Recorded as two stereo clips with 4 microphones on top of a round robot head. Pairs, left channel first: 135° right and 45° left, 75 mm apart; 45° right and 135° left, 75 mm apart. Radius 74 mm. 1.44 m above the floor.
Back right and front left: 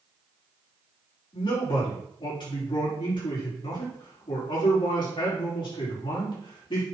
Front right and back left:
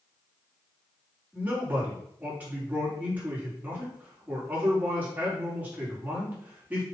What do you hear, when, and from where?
1.3 s a man speaking: 155° right, 4.5 m